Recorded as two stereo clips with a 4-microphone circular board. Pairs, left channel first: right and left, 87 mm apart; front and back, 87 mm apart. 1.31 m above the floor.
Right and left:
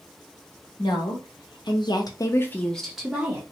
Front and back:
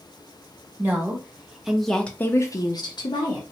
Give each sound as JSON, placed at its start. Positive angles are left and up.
{"t": 0.8, "sound": "a woman speaking", "azimuth_deg": -110, "distance_m": 1.2}